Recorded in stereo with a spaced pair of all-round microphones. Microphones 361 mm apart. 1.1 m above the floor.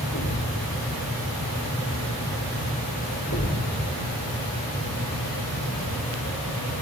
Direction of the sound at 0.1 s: 60° left (ahead or behind).